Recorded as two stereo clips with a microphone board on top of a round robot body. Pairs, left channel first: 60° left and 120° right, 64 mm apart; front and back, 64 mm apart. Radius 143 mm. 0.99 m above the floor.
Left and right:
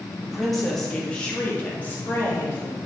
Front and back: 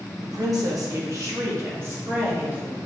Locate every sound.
0.2 s a woman speaking: 155° left, 1.8 m; by 2.8 s 115° left, 2.5 m